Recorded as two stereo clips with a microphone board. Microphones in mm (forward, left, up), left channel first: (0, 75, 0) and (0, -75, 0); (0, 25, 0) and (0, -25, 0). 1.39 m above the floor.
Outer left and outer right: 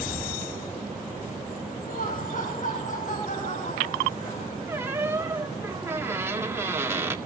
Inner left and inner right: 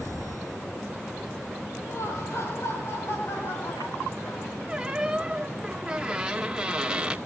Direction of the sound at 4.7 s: 15° right (ahead or behind).